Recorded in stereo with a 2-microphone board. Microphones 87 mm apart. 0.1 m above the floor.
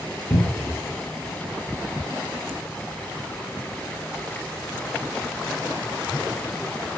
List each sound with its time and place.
0.3 s a cupboard door: 10° left (ahead or behind), 1.8 m